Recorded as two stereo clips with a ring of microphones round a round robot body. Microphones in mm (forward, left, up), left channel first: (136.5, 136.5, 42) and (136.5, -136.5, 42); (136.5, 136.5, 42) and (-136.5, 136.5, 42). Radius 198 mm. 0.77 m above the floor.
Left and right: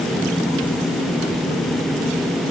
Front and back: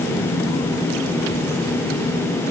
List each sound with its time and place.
Only background noise.